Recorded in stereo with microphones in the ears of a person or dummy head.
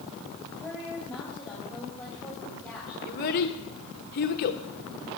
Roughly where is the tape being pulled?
No tape being pulled in this recording.